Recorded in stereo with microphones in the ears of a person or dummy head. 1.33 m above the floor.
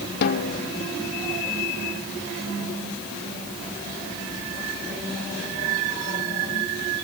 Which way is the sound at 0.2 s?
55° left (ahead or behind).